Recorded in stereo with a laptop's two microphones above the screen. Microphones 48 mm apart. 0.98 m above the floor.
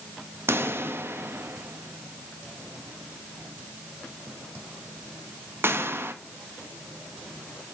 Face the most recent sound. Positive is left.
turn(degrees=-55)  # may be behind; listen again after turning